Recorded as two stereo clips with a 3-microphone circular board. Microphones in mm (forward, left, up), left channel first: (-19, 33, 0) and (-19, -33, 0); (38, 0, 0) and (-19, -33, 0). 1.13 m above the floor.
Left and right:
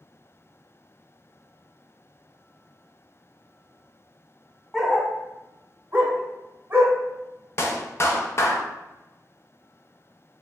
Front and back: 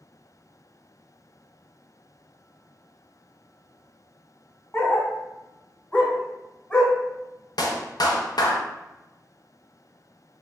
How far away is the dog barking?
About 0.8 m.